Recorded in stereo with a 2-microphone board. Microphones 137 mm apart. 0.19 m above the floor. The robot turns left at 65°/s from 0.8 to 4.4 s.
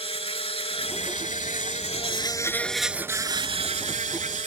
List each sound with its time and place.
0.0 s an insect: 130° left; by 4.5 s 105° right